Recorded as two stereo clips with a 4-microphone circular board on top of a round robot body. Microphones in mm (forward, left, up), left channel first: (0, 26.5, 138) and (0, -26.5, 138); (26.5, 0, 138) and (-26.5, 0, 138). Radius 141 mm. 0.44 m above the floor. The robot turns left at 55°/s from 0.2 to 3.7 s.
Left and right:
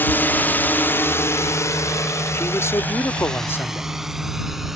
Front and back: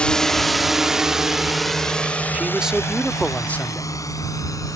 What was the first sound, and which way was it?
A drone, 60° left.